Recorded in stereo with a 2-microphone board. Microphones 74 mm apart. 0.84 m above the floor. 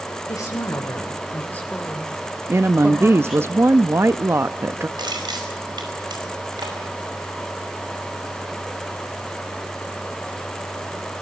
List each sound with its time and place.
0.3 s a woman speaking: 55° left (ahead or behind), 2.5 m; by 3.5 s 15° right (ahead or behind), 3.5 m
2.5 s a woman speaking: 35° right (ahead or behind), 0.7 m
5.0 s crushing: 75° right (ahead or behind), 5 m